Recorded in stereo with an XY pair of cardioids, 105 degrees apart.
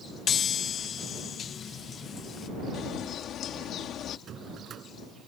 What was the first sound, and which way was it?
A chime, 50° left.